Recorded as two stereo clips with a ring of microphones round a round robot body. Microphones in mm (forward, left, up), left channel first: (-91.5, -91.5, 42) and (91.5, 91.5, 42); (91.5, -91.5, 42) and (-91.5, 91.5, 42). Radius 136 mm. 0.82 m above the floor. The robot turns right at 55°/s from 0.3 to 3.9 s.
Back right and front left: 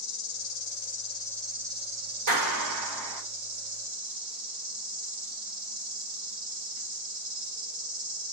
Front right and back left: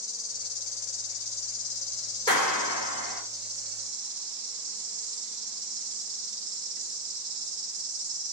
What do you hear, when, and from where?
0.0 s an insect: 110° right, 2 m; by 8.3 s 90° left, 2 m
2.3 s a clap: 30° left, 2.5 m; by 3.2 s 80° left, 2.5 m